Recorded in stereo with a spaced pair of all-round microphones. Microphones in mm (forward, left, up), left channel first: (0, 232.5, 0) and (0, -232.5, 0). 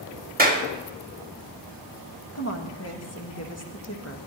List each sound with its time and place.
0.4 s a clap: 20° right (ahead or behind), 2.0 m
2.3 s a woman speaking: 30° left (ahead or behind), 1.9 m